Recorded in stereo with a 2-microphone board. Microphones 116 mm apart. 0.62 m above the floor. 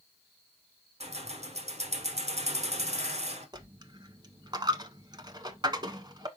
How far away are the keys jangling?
About 1.3 m.